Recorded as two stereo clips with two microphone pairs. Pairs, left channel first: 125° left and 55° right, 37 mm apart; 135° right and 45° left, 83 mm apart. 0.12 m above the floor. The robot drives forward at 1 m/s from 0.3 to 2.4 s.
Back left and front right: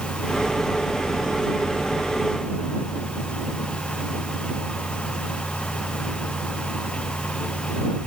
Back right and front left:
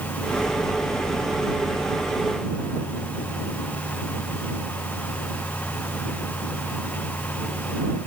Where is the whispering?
I don't hear whispering.